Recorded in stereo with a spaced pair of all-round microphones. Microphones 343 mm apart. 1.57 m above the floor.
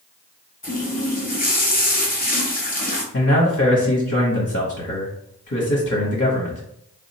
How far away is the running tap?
About 0.7 m.